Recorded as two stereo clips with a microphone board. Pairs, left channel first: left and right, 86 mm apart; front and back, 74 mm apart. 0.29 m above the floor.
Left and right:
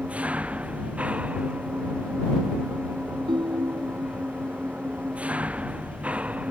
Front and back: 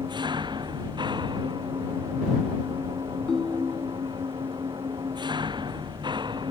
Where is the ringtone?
80° right.